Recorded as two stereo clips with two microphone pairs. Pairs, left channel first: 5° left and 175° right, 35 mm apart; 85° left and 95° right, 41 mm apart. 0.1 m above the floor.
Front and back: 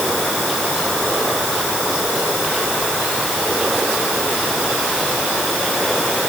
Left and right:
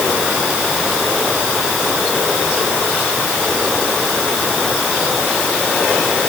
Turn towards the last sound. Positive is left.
No sound to turn to.